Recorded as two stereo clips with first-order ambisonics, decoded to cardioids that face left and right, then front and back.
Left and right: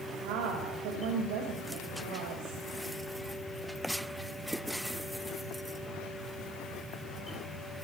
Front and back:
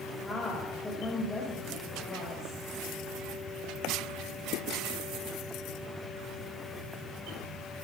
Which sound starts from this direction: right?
A woman speaking, at 0.2 s.